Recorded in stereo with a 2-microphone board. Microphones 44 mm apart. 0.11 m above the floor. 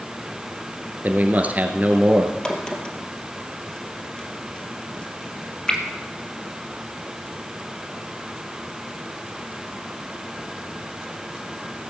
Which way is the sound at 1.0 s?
35° right (ahead or behind).